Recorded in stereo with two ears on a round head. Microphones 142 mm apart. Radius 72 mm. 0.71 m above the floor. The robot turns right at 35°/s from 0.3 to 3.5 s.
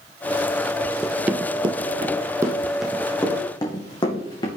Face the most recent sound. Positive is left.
turn(degrees=25)  # may be behind; listen again after turning